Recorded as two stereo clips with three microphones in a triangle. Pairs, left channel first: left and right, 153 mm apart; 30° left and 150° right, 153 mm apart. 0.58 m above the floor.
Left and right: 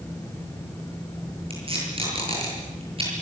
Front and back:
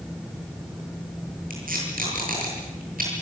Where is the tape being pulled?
140° right, 9 m.